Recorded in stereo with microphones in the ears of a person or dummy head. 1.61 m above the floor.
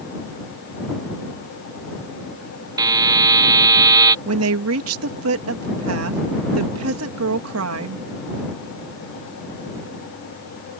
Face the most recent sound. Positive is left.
turn(degrees=-80)